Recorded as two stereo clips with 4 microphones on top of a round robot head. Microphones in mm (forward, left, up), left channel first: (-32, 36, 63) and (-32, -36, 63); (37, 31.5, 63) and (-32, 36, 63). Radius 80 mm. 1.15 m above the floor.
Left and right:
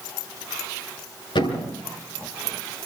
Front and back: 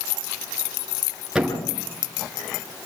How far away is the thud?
About 9.5 m.